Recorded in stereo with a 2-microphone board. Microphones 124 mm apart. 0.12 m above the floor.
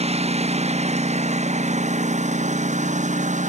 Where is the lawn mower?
55° right (ahead or behind); by 3.5 s 75° right (ahead or behind).